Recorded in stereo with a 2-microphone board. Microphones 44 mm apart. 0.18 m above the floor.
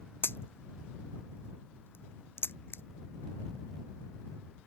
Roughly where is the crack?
Left.